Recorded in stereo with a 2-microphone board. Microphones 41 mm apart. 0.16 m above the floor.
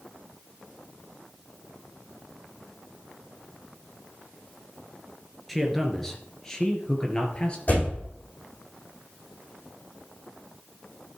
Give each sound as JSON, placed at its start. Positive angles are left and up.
{"t": 5.5, "sound": "a man speaking", "side_deg": 5, "distance_m": 2.5}
{"t": 7.7, "sound": "a door slam", "side_deg": 45, "distance_m": 7.0}